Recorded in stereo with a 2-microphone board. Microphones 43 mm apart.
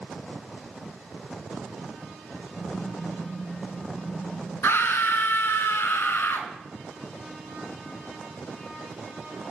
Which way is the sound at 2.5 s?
35° left (ahead or behind).